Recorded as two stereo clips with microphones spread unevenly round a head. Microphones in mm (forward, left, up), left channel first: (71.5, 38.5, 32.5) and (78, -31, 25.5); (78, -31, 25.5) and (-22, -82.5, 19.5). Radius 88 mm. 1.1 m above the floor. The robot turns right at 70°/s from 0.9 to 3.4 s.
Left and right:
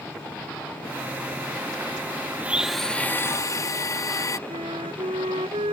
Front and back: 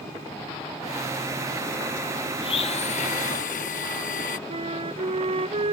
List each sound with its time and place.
2.4 s a blender: 20° right; by 4.4 s 50° left
4.5 s a flute: 115° right